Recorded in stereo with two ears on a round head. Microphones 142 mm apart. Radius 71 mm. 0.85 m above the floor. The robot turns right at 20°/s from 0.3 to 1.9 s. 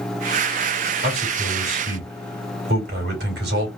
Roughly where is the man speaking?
Right.